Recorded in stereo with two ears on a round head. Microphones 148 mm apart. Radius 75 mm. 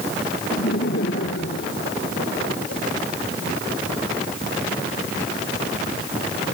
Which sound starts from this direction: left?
Laughter, at 0.5 s.